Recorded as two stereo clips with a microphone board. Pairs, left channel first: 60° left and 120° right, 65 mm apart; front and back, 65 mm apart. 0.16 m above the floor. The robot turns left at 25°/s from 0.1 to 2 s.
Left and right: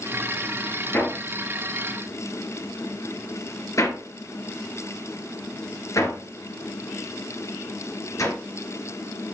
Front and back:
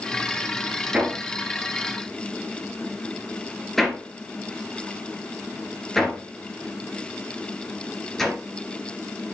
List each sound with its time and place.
0.9 s hammering: 110° left, 2.5 m; by 8.3 s 85° left, 2.5 m